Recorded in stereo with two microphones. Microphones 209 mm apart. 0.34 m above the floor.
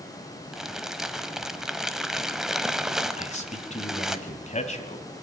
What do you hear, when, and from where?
0.5 s crumpling: centre (ahead or behind), 1.1 m
3.2 s a man speaking: 35° left (ahead or behind), 2.0 m